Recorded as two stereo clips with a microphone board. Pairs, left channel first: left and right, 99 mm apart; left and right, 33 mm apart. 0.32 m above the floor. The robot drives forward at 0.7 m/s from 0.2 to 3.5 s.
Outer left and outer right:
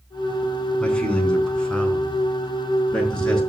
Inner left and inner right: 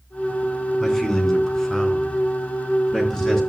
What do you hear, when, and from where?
0.8 s a man speaking: 10° left (ahead or behind), 3.5 m; by 3.4 s 5° left (ahead or behind), 5.5 m